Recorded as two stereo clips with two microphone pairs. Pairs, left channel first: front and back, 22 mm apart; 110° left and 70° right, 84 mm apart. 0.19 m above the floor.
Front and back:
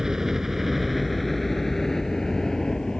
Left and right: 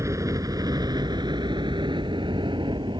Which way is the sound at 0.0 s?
115° right.